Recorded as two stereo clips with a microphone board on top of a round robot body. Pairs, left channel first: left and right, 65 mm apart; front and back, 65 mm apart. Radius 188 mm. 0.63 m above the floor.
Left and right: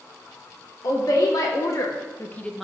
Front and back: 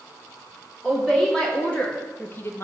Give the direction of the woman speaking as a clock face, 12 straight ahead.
9 o'clock.